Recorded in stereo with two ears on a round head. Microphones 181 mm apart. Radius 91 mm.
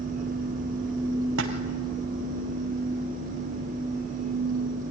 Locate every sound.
1.4 s a splash: 70° right (ahead or behind), 2.5 m